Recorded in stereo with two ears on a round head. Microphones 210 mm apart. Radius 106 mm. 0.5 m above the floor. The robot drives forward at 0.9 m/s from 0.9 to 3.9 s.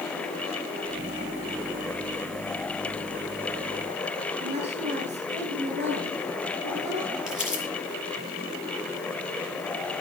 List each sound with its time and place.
4.4 s a woman speaking: 50° right (ahead or behind), 7.5 m
7.3 s crumpling: 5° right (ahead or behind), 7 m